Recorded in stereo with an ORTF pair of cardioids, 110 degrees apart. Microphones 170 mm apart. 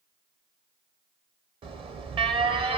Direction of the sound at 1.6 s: 35° right.